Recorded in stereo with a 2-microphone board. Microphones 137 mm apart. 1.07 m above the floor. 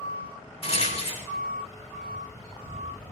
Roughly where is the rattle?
Left.